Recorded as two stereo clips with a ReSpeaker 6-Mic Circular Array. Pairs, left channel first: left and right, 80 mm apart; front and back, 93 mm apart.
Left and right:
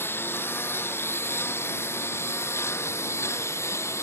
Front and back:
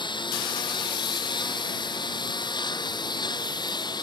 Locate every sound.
0.0 s a lawn mower: 30° left; by 4.0 s 35° left